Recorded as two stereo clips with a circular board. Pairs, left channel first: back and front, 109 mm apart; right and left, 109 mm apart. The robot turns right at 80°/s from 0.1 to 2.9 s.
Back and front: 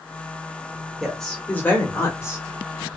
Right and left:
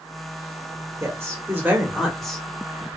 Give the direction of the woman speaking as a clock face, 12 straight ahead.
9 o'clock.